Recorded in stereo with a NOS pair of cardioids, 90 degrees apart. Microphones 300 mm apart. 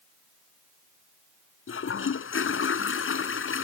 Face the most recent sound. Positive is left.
turn(degrees=45)